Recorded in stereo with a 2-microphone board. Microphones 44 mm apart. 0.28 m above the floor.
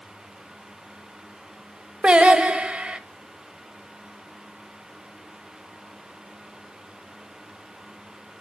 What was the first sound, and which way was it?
Singing, 25° right (ahead or behind).